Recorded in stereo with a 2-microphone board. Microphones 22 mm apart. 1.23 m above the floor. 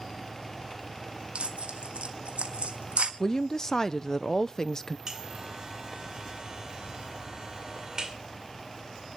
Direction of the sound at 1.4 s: 65° right (ahead or behind).